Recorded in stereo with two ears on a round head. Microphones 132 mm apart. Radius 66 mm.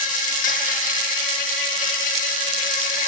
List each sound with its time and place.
0.0 s an insect: 50° left (ahead or behind), 1.0 m